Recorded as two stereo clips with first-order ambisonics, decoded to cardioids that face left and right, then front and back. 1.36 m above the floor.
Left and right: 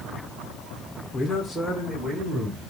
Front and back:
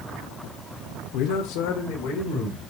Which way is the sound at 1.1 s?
20° left.